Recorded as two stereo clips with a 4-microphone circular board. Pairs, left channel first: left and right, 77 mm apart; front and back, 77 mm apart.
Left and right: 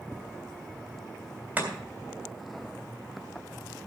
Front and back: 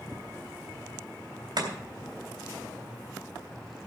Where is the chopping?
155° right, 3 m.